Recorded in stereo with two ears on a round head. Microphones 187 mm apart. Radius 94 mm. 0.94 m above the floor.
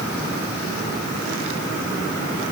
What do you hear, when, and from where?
Only background noise.